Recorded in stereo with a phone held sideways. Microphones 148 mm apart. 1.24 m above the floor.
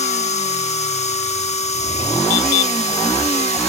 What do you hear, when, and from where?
0.0 s a machine running: 50° left (ahead or behind), 1.0 m